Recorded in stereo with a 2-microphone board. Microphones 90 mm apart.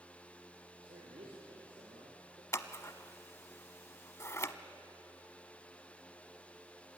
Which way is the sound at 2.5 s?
35° left (ahead or behind).